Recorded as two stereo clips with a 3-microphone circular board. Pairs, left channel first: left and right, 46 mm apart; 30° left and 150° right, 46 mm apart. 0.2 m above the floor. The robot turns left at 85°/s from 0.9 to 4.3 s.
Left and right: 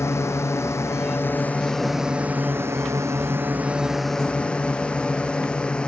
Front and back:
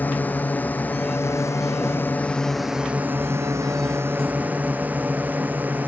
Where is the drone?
80° left; by 5.9 s 160° left.